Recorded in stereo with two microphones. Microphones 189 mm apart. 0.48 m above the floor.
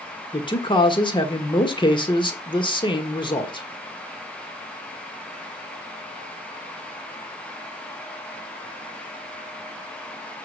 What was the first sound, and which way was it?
A man speaking, 25° left (ahead or behind).